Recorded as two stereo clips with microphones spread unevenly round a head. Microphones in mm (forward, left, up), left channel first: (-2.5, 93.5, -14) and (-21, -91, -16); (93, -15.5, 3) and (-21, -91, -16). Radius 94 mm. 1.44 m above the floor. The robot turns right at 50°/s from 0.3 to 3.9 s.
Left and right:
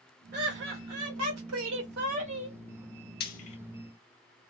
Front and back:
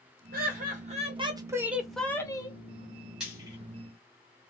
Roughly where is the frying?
Behind left.